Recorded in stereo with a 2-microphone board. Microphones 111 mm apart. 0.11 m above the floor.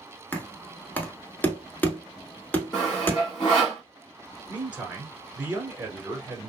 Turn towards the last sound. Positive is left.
turn(degrees=-15)  # may be behind; listen again after turning